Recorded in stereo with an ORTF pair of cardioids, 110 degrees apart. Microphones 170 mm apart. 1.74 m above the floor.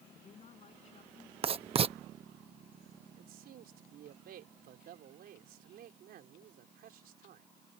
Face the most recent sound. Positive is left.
turn(degrees=-65)